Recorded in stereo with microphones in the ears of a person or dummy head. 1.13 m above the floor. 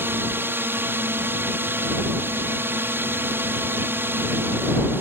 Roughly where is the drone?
Centre.